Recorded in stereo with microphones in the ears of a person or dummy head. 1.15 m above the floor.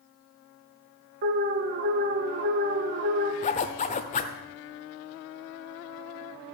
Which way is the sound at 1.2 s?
45° right (ahead or behind).